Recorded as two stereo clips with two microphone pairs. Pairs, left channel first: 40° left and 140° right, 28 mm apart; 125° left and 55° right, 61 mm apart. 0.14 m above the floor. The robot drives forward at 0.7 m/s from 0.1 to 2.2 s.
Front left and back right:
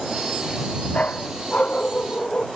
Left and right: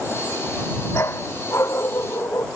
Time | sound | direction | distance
0.9 | a dog barking | 80° left | ?